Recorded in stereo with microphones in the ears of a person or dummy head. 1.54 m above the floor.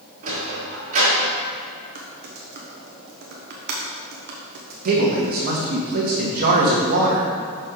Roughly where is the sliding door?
Right.